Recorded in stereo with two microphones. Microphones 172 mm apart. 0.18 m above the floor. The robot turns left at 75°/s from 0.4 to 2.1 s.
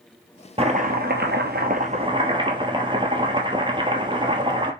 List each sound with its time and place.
0.6 s chopping: 35° right, 0.9 m; by 4.7 s 150° right, 0.9 m